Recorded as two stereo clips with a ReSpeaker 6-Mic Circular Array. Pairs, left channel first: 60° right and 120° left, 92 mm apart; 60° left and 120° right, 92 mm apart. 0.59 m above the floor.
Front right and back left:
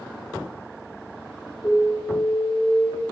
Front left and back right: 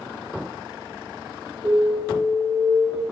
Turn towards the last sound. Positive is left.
turn(degrees=-115)